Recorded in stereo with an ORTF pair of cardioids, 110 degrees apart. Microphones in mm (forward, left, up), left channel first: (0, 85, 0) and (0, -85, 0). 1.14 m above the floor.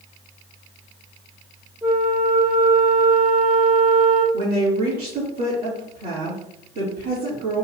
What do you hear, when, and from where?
1.8 s a flute: 5° right, 1.9 m
4.3 s a woman speaking: 65° right, 3.5 m